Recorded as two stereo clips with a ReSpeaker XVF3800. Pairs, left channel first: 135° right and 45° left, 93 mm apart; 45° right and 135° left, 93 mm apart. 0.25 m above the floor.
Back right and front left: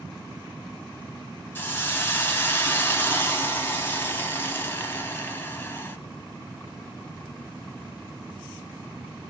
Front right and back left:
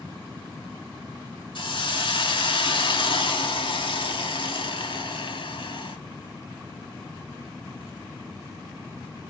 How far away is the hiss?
About 0.9 m.